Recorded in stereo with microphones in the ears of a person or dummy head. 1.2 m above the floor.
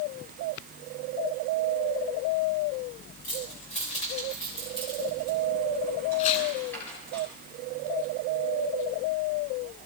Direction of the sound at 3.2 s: 45° left (ahead or behind).